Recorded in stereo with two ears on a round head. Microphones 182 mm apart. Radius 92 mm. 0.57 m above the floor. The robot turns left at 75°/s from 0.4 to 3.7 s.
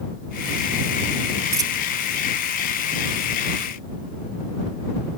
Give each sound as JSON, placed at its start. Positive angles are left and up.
{"t": 1.5, "sound": "a dropped coin", "side_deg": -10}